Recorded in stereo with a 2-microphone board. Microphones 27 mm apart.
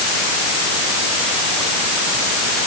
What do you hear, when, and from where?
Only background noise.